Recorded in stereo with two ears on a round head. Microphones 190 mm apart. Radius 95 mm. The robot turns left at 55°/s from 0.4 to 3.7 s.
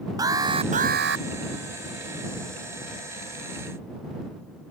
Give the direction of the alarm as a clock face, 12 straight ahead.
1 o'clock.